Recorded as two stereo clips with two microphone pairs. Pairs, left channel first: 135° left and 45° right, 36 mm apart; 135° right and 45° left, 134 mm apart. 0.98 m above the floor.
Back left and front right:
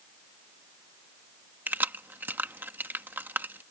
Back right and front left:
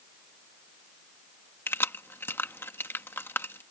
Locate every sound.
1.7 s keys jangling: 65° right